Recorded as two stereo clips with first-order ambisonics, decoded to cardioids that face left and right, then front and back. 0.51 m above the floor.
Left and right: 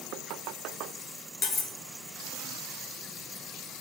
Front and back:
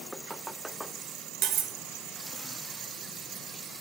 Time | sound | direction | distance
1.4 | cutlery clinking | 140° left | 0.9 m